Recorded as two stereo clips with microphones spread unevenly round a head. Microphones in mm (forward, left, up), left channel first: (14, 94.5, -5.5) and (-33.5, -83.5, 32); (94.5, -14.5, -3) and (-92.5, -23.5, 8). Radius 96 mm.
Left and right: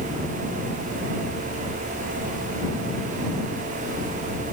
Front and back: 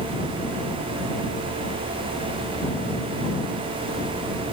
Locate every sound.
Only background noise.